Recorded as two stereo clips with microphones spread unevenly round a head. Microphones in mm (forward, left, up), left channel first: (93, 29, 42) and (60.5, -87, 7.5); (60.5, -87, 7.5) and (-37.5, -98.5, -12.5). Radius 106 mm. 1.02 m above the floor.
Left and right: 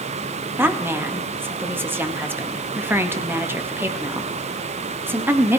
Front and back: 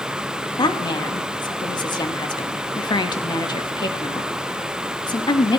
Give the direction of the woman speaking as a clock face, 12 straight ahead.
1 o'clock.